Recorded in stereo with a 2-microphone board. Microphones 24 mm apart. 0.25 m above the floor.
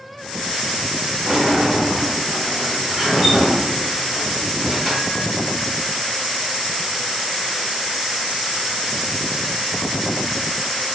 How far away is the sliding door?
About 1.5 m.